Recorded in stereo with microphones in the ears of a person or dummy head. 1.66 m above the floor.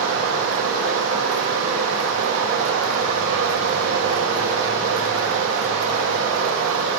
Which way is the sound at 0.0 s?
75° right (ahead or behind).